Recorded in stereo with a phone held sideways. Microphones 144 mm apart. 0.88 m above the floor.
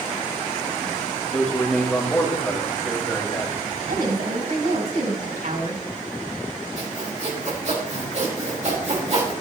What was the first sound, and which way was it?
A man speaking, 5° left (ahead or behind).